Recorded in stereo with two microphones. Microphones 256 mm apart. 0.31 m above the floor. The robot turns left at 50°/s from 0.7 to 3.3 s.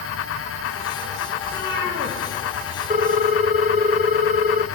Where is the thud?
I don't hear a thud.